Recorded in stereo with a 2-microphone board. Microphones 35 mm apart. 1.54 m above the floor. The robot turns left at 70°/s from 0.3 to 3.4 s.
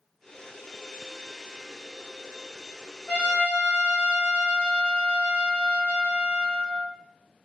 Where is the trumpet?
55° left (ahead or behind), 1.4 m; by 7.0 s 45° left (ahead or behind), 1.4 m.